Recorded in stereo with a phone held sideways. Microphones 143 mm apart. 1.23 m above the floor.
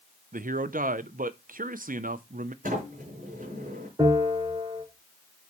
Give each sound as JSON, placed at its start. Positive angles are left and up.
{"t": 0.3, "sound": "a man speaking", "side_deg": -70, "distance_m": 0.5}
{"t": 2.6, "sound": "a sliding door", "side_deg": -70, "distance_m": 4.5}
{"t": 4.0, "sound": "a bell", "side_deg": -30, "distance_m": 5.0}